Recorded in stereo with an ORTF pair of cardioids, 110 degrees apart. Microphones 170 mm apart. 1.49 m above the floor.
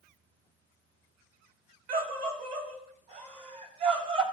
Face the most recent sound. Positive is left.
turn(degrees=-35)